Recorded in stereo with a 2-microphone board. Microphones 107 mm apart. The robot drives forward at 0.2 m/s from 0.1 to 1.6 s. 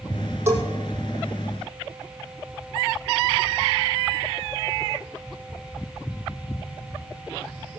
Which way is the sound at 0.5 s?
25° right (ahead or behind).